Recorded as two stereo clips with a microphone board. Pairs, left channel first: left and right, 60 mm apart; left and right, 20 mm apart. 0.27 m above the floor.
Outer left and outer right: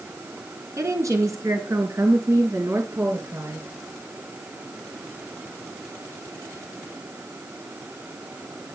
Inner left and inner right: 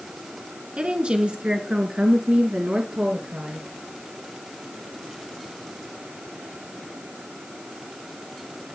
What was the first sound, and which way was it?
A woman speaking, 60° right (ahead or behind).